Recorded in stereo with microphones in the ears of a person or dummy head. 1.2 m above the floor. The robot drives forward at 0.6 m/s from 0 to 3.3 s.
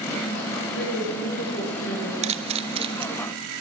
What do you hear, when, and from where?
0.7 s a woman speaking: 75° left (ahead or behind), 7.5 m; by 2.1 s 65° left (ahead or behind), 7.5 m
2.2 s a camera shutter: 30° right (ahead or behind), 0.8 m; by 3.1 s 20° right (ahead or behind), 1.1 m